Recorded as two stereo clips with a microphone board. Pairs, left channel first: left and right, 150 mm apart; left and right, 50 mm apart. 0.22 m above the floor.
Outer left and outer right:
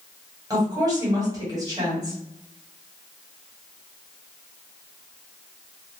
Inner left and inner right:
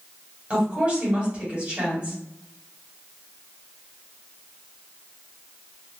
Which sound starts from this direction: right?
A woman speaking, at 0.5 s.